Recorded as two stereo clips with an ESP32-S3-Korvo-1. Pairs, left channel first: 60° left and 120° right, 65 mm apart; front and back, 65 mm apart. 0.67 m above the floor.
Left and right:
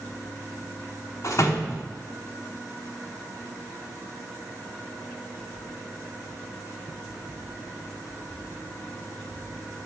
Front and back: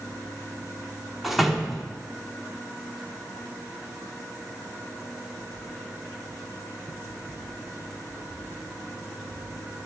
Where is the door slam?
95° left, 1.0 m.